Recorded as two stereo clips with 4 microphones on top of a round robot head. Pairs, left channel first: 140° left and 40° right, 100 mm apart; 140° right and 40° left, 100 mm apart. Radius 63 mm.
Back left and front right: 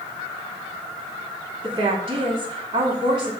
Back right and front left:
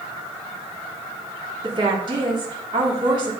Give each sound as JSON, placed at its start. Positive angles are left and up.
{"t": 1.6, "sound": "a woman speaking", "azimuth_deg": 0, "distance_m": 2.0}